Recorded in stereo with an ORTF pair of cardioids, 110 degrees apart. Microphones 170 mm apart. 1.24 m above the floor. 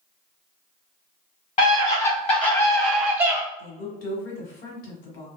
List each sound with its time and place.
1.6 s a scream: 50° left, 1.2 m; by 3.4 s 20° right, 0.5 m
3.6 s a woman speaking: 65° left, 1.2 m